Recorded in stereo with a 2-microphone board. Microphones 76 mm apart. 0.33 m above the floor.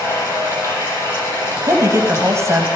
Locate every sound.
0.0 s running water: 35° left (ahead or behind), 9 m
1.6 s a woman speaking: 40° right (ahead or behind), 2.5 m